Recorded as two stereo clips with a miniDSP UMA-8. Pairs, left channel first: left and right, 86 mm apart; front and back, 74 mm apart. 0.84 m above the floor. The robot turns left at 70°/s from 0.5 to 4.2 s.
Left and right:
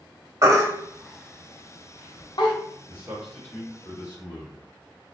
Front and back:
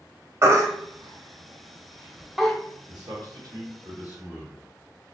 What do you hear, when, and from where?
0.4 s a baby crying: 135° right, 0.6 m; by 2.5 s 80° left, 0.6 m
2.9 s a man speaking: 155° right, 1.6 m; by 4.7 s 115° left, 1.6 m